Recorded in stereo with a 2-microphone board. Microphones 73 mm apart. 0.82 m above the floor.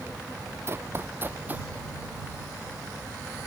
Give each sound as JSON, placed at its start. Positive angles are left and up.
{"t": 0.7, "sound": "running footsteps", "side_deg": -35}